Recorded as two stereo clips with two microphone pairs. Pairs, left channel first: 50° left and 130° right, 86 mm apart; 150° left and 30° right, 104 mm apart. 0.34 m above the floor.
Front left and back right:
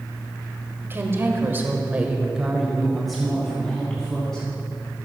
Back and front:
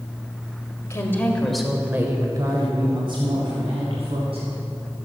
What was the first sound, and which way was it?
A woman speaking, 175° right.